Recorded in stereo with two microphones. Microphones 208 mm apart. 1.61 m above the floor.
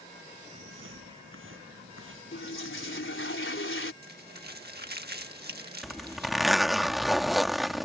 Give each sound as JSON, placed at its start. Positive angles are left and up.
{"t": 0.5, "sound": "footsteps", "side_deg": -75}
{"t": 2.3, "sound": "a toilet flushing", "side_deg": 70}
{"t": 4.0, "sound": "crumpling", "side_deg": -50}
{"t": 5.8, "sound": "a zipper", "side_deg": 0}